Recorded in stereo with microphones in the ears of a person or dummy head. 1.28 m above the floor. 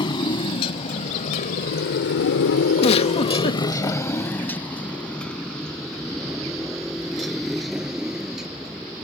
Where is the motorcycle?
25° left (ahead or behind); by 9.0 s centre (ahead or behind).